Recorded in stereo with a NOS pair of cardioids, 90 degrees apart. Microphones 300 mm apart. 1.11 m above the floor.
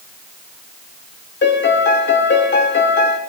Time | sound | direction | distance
1.4 | a piano | 40° left | 1.6 m